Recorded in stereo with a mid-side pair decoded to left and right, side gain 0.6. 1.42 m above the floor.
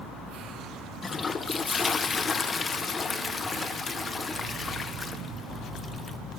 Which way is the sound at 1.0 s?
30° left.